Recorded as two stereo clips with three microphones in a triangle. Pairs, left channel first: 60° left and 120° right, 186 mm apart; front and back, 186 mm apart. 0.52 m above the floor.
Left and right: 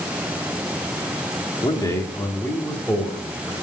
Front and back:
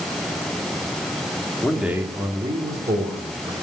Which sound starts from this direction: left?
A man speaking, at 1.6 s.